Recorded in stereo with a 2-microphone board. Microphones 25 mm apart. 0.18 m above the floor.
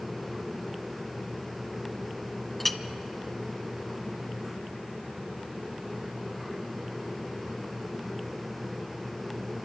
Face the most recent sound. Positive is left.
turn(degrees=5)  # may be behind; listen again after turning